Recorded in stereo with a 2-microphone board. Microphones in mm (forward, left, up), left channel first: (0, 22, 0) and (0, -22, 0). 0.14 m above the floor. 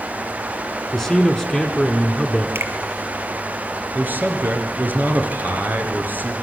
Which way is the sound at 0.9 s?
5° left (ahead or behind).